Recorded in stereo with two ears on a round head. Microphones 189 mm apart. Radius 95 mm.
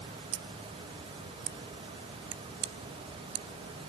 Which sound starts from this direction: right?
Scissors, at 0.3 s.